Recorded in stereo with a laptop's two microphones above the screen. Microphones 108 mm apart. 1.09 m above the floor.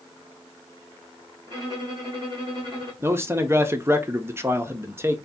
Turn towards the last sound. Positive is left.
turn(degrees=-25)  # may be behind; listen again after turning